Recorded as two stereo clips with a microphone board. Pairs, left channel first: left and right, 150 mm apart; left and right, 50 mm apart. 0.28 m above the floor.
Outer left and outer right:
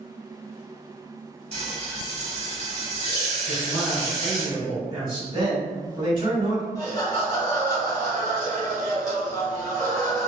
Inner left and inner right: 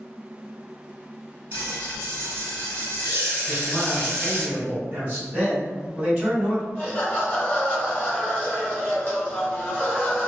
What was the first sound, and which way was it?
Frying, 45° right (ahead or behind).